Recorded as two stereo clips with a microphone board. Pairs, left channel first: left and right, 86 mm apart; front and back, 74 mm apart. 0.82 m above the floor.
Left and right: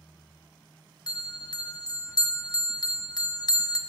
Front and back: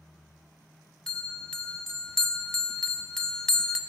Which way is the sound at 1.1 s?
80° left.